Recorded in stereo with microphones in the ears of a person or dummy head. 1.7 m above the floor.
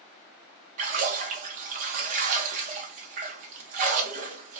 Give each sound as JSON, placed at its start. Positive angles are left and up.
{"t": 0.8, "sound": "a splash", "side_deg": -45, "distance_m": 0.7}